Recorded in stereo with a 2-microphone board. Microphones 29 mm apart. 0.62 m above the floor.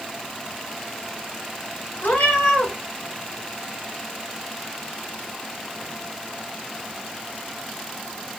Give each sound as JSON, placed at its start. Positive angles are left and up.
{"t": 2.0, "sound": "a cat meowing", "side_deg": 85, "distance_m": 1.1}